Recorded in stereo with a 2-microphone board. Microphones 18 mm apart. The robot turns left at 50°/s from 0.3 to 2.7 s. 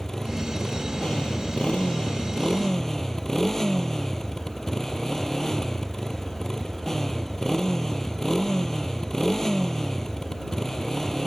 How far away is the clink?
No clink in this recording.